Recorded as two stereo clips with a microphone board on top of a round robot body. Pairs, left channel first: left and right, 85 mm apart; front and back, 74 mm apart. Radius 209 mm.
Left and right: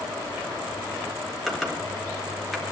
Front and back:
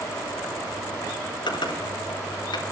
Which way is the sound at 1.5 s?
Straight ahead.